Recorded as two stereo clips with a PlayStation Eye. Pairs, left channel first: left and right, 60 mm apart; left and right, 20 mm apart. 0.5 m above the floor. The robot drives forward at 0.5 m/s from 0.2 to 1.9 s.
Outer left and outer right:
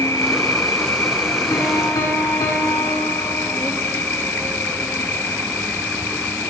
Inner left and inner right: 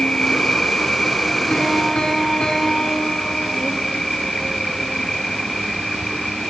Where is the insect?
65° left (ahead or behind), 1.0 m; by 6.5 s 35° left (ahead or behind), 1.5 m.